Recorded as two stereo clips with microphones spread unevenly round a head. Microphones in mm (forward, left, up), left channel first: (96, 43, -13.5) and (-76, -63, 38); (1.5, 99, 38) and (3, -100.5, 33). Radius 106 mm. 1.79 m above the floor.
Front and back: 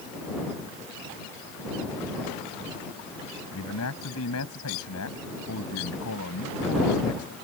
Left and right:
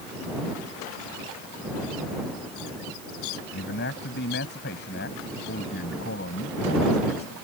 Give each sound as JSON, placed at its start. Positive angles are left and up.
{"t": 3.5, "sound": "a man speaking", "azimuth_deg": 50}